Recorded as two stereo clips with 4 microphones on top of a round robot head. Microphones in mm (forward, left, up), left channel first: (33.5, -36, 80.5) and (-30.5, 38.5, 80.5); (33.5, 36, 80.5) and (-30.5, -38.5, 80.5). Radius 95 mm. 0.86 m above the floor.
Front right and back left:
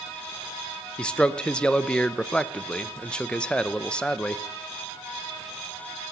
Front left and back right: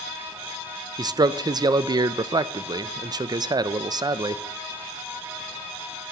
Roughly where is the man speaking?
Behind right.